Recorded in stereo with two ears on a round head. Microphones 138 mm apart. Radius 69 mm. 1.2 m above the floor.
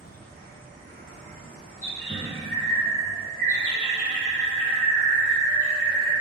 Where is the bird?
25° left (ahead or behind), 1.6 m.